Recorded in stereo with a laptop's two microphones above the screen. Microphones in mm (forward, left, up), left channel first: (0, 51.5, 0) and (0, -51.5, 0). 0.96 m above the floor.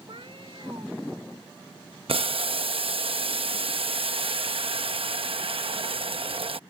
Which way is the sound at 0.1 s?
60° right (ahead or behind).